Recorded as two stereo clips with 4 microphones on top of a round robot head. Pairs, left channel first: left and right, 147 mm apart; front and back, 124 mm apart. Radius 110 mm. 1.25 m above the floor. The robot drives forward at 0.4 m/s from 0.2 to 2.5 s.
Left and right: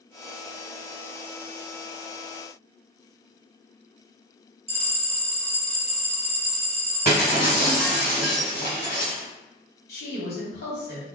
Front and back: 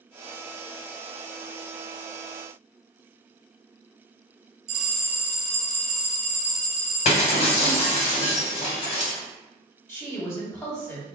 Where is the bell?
140° right, 1.6 m.